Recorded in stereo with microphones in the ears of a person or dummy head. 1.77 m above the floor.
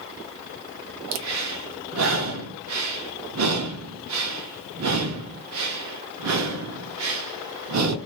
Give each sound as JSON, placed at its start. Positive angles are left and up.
{"t": 1.1, "sound": "breathing", "side_deg": -85, "distance_m": 0.5}